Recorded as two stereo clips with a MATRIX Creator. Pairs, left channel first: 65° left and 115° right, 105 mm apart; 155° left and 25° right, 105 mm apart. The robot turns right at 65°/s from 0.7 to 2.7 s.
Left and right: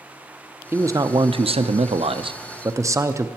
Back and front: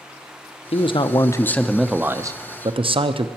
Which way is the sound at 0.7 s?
Straight behind.